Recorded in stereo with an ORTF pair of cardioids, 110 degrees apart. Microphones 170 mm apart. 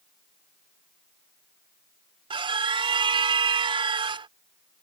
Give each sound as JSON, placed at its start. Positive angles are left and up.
{"t": 2.3, "sound": "a scream", "azimuth_deg": -30}